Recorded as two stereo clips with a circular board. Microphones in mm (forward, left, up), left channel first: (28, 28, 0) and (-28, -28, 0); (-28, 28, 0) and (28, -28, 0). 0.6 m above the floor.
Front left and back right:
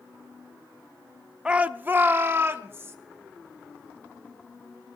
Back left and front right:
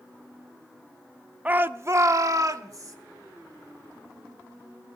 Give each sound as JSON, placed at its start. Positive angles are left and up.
{"t": 1.4, "sound": "a shout", "azimuth_deg": -75, "distance_m": 0.5}